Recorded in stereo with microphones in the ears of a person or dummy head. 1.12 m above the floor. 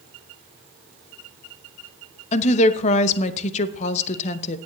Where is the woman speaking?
40° left (ahead or behind), 0.9 m.